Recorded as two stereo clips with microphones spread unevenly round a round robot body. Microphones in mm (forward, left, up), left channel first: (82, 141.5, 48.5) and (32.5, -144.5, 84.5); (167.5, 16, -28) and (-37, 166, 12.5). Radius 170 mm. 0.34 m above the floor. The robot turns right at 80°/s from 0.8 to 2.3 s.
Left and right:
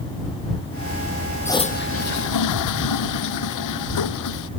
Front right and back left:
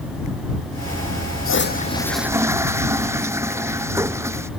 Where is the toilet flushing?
5° right; by 4.5 s 65° left.